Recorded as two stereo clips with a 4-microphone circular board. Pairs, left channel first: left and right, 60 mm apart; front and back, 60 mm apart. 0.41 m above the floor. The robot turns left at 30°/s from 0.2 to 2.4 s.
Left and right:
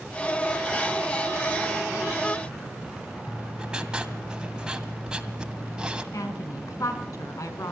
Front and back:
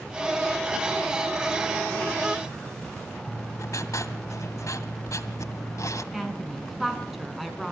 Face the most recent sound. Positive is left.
turn(degrees=90)